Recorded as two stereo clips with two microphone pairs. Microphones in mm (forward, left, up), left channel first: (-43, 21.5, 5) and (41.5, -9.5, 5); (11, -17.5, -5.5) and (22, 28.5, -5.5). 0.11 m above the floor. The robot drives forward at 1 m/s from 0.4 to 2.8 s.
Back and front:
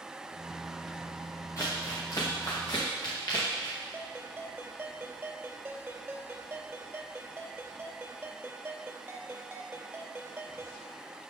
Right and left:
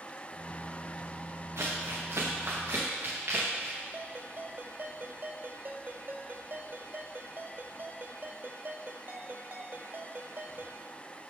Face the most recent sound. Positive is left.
turn(degrees=45)